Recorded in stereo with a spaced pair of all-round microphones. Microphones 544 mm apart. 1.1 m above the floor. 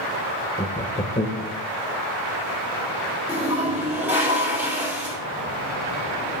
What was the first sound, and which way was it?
Laughter, 15° left (ahead or behind).